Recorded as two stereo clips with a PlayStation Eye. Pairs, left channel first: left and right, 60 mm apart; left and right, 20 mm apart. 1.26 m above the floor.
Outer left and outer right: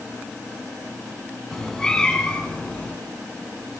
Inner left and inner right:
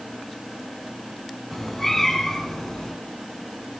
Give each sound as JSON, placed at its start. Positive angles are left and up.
{"t": 1.5, "sound": "a cat meowing", "side_deg": 10, "distance_m": 4.5}